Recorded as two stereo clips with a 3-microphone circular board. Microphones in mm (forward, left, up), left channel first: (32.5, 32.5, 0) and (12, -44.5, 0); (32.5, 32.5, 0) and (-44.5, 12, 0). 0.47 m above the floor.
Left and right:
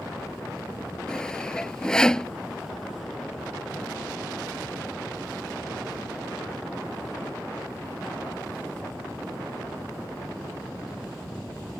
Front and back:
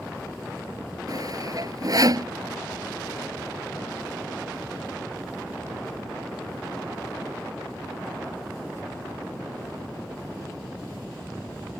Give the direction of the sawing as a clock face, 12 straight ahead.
7 o'clock.